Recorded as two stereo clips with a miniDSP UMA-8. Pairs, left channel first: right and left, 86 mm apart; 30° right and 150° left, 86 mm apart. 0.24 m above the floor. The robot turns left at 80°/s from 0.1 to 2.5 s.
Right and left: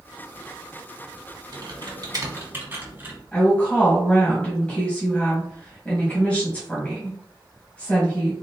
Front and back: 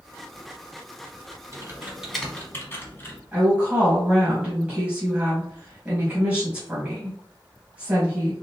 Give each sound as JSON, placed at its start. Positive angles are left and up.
{"t": 1.5, "sound": "typing on a keyboard", "azimuth_deg": 110, "distance_m": 1.2}
{"t": 3.3, "sound": "a woman speaking", "azimuth_deg": -150, "distance_m": 1.2}